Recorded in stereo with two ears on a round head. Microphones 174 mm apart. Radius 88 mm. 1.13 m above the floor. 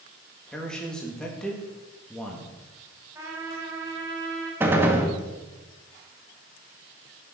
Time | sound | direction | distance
0.5 | a man speaking | 5° left (ahead or behind) | 2 m
3.1 | a trumpet | 15° right (ahead or behind) | 4 m
4.6 | a gunshot | 10° right (ahead or behind) | 1.6 m